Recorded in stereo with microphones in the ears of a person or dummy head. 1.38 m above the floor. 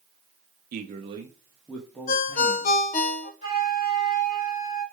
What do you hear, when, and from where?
0.7 s a man speaking: 55° right (ahead or behind), 0.6 m; by 2.8 s 15° left (ahead or behind), 1.4 m
2.1 s a ringtone: 45° left (ahead or behind), 0.7 m
3.4 s a flute: 35° left (ahead or behind), 3.5 m